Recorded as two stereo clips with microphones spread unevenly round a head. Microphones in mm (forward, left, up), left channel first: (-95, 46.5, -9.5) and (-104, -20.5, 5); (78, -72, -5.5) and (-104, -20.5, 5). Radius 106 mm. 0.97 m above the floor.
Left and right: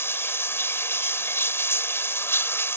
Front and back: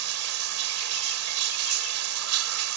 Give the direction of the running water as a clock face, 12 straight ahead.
7 o'clock.